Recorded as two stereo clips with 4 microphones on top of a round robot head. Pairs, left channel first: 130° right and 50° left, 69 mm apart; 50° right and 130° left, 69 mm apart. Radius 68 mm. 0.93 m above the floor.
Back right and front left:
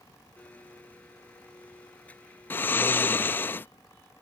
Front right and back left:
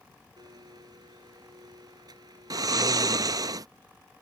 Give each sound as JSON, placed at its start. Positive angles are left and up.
{"t": 0.4, "sound": "a blender", "azimuth_deg": 160}
{"t": 2.5, "sound": "snoring", "azimuth_deg": 170}